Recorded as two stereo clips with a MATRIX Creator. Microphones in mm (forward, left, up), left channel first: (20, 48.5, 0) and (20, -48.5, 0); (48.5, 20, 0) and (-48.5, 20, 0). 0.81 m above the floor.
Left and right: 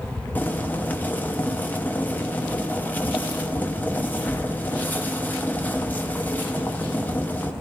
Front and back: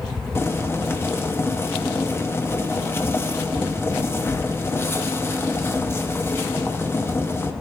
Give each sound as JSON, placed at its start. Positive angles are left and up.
{"t": 0.3, "sound": "boiling", "azimuth_deg": 35, "distance_m": 0.9}